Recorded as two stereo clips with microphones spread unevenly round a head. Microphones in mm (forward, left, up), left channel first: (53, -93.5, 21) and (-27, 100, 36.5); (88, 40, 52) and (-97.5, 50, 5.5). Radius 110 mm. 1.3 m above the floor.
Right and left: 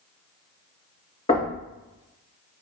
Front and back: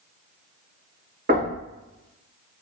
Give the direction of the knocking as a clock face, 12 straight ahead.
4 o'clock.